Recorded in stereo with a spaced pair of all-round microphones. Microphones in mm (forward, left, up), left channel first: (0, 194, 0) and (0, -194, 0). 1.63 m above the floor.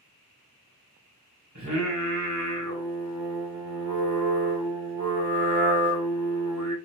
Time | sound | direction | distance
1.6 | singing | 50° right (ahead or behind) | 1.7 m